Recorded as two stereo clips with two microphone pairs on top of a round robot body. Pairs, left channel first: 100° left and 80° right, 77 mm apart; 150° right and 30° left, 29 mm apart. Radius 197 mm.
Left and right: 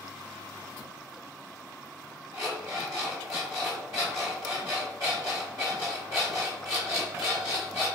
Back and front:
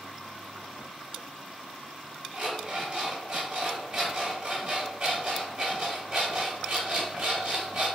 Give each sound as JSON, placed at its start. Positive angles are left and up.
{"t": 2.3, "sound": "an alarm clock", "azimuth_deg": -35, "distance_m": 0.7}